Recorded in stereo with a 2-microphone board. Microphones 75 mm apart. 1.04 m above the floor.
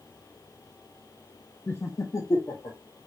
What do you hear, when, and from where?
1.7 s laughter: 30° left (ahead or behind), 0.6 m; by 2.8 s 55° left (ahead or behind), 1.4 m